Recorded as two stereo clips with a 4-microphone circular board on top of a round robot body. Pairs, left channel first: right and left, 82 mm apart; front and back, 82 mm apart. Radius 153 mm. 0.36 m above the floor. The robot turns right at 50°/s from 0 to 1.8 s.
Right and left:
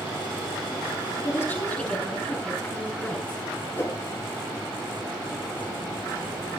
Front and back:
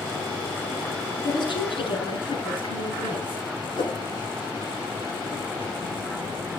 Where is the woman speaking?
35° right, 7.5 m; by 3.4 s 10° right, 7.5 m.